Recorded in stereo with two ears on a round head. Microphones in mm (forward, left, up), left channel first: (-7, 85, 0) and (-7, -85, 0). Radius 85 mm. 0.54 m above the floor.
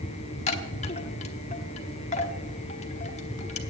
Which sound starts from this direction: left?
A chime, at 0.5 s.